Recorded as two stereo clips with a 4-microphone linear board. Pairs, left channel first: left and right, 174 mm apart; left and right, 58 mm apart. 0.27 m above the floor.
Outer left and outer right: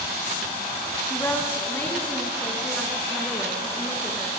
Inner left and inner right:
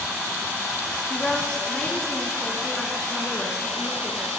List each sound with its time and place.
1.1 s a woman speaking: 15° left (ahead or behind), 2.0 m; by 4.3 s centre (ahead or behind), 4 m